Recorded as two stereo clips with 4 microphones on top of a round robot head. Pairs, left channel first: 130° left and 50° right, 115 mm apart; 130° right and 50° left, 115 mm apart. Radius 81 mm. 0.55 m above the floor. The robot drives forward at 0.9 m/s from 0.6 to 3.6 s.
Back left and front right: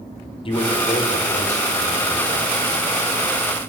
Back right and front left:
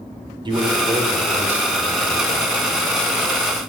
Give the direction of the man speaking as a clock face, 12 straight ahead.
9 o'clock.